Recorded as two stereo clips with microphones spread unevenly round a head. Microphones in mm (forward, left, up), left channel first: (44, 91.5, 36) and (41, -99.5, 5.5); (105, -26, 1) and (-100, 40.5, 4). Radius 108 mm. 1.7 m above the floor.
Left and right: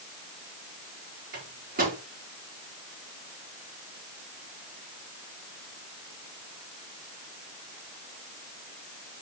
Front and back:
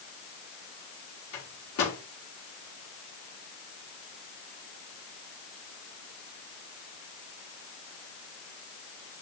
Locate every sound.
1.3 s a microwave: 45° right, 5 m